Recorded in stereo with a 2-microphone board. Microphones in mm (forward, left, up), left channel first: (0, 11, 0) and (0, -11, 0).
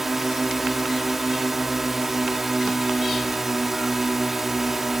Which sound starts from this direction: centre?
A drone, at 0.0 s.